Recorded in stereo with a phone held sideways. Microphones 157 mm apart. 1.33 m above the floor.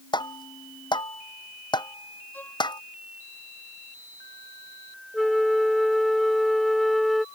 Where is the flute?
Centre (ahead or behind).